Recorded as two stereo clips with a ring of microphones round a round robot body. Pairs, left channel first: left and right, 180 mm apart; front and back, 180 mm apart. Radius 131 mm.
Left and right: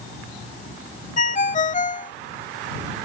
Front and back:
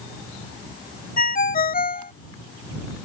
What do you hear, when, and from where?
1.2 s a ringtone: 40° left